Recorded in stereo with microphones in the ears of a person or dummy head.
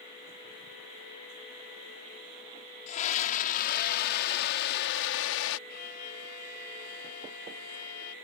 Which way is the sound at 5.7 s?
55° left (ahead or behind).